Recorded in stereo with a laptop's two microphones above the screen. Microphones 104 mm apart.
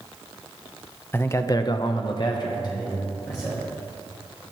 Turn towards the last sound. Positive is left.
turn(degrees=35)  # may be behind; listen again after turning